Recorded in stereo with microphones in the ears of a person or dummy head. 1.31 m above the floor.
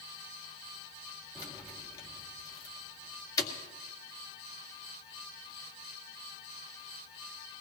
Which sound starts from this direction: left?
Keys jangling, at 1.4 s.